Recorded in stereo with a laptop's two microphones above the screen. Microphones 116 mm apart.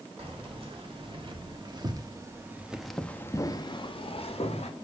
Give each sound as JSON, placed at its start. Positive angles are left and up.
{"t": 0.2, "sound": "keys jangling", "side_deg": -60, "distance_m": 2.0}